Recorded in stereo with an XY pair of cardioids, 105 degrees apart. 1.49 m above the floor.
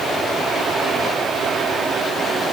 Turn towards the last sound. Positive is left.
No sound to turn to.